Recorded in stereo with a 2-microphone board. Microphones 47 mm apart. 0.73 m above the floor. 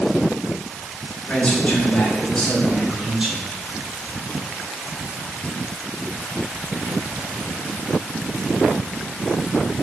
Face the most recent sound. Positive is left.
turn(degrees=-25)  # may be behind; listen again after turning